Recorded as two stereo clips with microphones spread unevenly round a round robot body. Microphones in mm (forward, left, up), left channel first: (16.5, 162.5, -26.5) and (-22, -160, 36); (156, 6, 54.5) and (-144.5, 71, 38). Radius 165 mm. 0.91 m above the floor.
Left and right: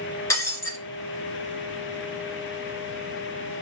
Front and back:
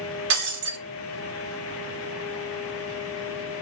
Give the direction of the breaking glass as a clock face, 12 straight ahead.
6 o'clock.